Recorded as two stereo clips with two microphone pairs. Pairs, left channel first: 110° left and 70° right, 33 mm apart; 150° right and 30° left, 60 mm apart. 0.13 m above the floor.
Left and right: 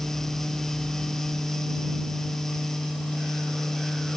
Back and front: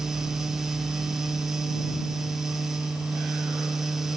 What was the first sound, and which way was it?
Only background noise.